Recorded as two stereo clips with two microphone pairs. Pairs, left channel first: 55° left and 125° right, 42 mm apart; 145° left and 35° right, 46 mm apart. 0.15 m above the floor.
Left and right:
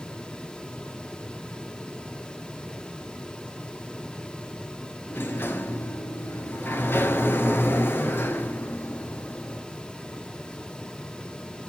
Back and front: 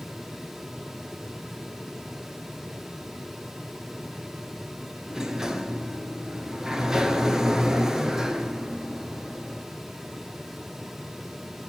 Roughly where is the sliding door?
Ahead left.